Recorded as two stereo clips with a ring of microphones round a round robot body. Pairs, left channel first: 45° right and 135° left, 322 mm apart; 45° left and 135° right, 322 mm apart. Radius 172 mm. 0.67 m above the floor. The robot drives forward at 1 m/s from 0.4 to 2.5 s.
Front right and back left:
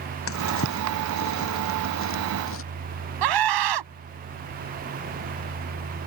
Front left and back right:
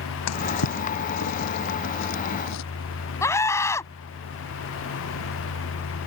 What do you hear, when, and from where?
0.3 s a drawer: 5° left
3.2 s a scream: 125° left